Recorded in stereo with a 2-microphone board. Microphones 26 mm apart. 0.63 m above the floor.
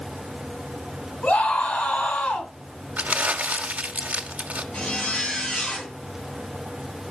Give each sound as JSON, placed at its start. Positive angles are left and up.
{"t": 1.2, "sound": "a scream", "side_deg": 80, "distance_m": 5.5}
{"t": 3.0, "sound": "crumpling", "side_deg": -75, "distance_m": 1.2}
{"t": 4.7, "sound": "a zipper", "side_deg": 55, "distance_m": 3.5}